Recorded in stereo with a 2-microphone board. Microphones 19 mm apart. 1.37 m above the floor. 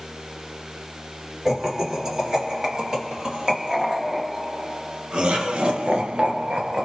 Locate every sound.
1.4 s laughter: 25° right (ahead or behind), 3 m; by 6.8 s 75° right (ahead or behind), 0.8 m